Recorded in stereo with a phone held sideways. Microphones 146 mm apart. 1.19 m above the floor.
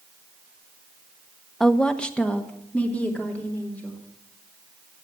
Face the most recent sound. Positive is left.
turn(degrees=10)  # may be behind; listen again after turning